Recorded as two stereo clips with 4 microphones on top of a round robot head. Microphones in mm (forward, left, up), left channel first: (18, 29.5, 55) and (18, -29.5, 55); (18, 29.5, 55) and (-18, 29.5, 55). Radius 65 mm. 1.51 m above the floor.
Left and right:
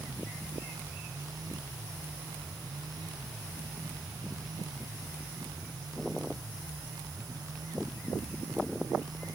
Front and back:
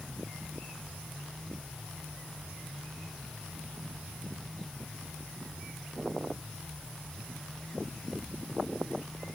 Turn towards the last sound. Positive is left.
No sound to turn to.